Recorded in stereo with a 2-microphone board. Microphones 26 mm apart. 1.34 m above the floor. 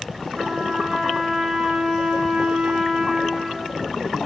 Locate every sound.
0.3 s a trumpet: 40° right (ahead or behind), 2.5 m